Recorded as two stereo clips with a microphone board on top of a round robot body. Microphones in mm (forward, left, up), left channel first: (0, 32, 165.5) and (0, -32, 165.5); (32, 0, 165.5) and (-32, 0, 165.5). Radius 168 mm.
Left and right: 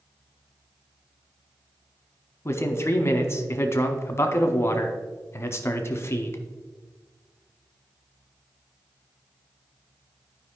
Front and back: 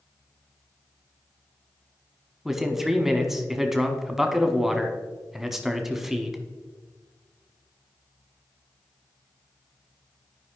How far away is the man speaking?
About 1.2 m.